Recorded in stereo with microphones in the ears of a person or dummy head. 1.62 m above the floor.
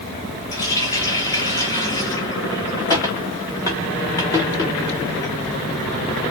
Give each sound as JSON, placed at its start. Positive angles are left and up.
{"t": 0.5, "sound": "a running tap", "side_deg": 20, "distance_m": 1.6}